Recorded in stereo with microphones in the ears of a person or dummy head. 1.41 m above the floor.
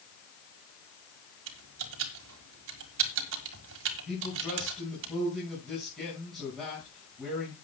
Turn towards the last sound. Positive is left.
turn(degrees=5)  # may be behind; listen again after turning